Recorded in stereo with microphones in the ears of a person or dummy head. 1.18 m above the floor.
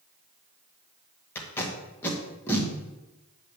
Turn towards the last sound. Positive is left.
turn(degrees=15)  # may be behind; listen again after turning